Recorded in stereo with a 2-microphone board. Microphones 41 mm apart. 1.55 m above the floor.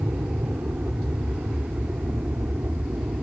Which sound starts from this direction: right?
An aircraft, at 0.0 s.